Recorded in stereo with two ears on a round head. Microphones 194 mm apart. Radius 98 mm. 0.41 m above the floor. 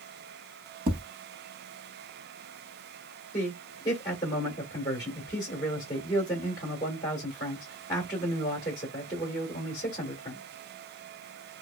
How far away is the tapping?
About 0.6 m.